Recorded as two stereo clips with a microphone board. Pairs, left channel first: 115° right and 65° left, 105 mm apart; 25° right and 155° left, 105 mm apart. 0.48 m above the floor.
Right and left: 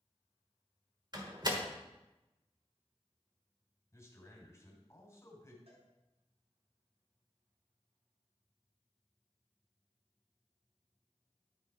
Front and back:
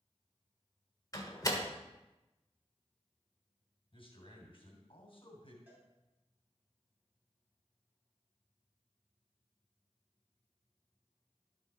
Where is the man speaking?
55° right, 3 m.